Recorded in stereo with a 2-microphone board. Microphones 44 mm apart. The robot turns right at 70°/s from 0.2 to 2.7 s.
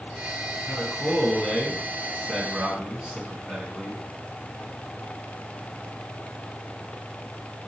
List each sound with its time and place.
0.7 s a man speaking: 25° left (ahead or behind), 1.4 m; by 4.0 s 20° right (ahead or behind), 1.4 m